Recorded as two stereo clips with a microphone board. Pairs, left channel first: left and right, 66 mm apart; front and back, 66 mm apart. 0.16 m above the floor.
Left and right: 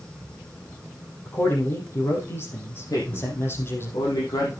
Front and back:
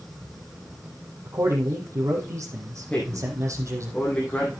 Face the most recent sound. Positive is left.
turn(degrees=75)